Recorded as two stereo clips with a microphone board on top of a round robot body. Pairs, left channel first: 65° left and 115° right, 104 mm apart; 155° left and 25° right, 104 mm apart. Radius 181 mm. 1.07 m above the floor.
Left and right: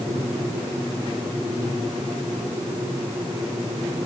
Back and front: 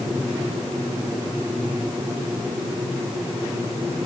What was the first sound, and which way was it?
Only background noise.